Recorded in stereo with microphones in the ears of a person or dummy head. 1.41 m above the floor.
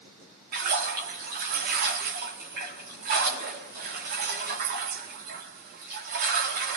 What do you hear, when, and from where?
0.5 s a splash: 45° right (ahead or behind), 1.4 m